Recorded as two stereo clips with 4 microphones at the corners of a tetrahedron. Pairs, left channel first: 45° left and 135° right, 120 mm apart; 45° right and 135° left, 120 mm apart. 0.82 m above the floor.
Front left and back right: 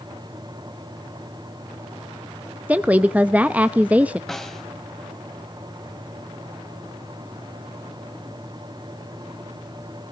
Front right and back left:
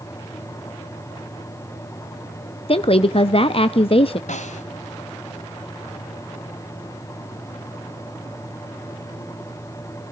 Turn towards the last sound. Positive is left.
turn(degrees=-40)